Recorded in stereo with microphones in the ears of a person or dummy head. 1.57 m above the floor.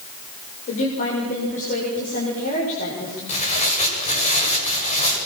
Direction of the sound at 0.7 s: 40° left (ahead or behind).